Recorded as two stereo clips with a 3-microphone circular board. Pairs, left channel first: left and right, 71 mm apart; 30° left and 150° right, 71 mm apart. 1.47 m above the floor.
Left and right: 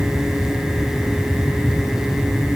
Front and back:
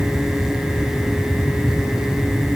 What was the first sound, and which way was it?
Only background noise.